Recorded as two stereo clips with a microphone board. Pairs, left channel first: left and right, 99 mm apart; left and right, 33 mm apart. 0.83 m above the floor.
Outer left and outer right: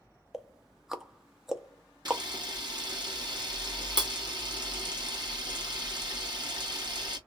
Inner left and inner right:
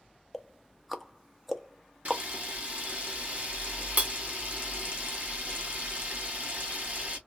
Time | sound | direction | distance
0.3 | ticking | 5° right (ahead or behind) | 0.6 m
2.0 | a camera shutter | 45° right (ahead or behind) | 1.2 m